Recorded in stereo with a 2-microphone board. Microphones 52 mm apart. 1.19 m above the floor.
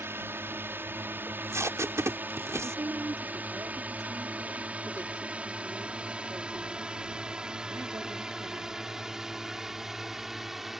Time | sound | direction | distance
0.0 | a drone | 50° right (ahead or behind) | ?
1.3 | tape being pulled | 65° right (ahead or behind) | ?
2.6 | a woman speaking | 80° right | ?